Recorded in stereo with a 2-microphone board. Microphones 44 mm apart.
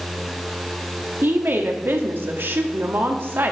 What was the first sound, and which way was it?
A woman speaking, 55° right (ahead or behind).